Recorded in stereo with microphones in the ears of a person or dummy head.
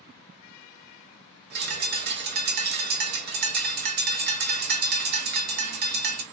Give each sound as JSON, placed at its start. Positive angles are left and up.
{"t": 1.5, "sound": "a bird", "side_deg": -50, "distance_m": 0.5}